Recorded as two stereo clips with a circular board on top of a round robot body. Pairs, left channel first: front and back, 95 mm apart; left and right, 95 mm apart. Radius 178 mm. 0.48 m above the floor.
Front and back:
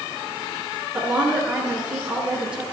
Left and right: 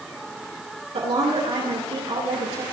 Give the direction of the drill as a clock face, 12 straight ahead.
I don't hear a drill.